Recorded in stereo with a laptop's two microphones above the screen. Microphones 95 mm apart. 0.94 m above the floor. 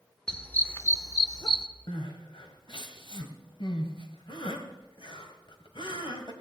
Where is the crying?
65° left (ahead or behind), 1.6 m.